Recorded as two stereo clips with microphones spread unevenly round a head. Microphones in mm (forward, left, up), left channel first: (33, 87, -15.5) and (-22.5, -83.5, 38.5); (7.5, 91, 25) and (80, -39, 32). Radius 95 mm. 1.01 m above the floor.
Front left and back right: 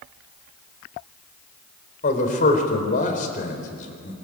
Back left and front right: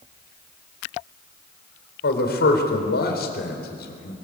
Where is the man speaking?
120° left, 4.5 m.